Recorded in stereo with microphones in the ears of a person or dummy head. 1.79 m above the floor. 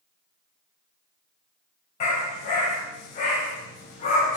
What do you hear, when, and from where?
2.0 s a dog barking: 40° left (ahead or behind), 4.5 m